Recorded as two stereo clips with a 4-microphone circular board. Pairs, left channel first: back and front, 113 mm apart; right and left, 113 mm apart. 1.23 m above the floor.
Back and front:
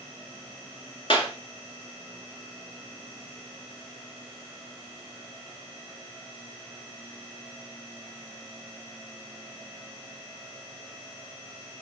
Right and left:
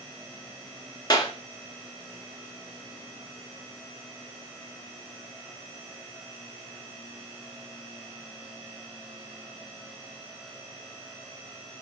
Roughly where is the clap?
Behind right.